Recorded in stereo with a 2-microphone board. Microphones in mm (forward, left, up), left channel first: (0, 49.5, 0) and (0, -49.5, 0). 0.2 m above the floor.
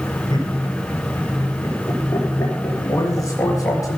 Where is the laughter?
45° left (ahead or behind), 3.5 m; by 3.8 s 15° left (ahead or behind), 3.5 m.